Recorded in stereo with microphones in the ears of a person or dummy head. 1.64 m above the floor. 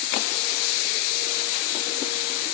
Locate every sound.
Only background noise.